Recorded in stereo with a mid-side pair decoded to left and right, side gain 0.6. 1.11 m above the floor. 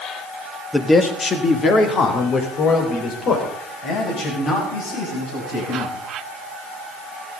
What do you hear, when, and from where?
0.7 s a man speaking: 10° left, 1.6 m; by 5.9 s 60° left, 8.5 m